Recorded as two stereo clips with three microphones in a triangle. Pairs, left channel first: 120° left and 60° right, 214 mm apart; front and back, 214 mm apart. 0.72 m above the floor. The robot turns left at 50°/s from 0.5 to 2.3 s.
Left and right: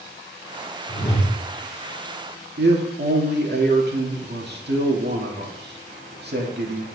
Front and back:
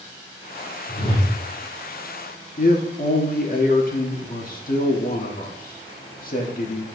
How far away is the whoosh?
About 2 m.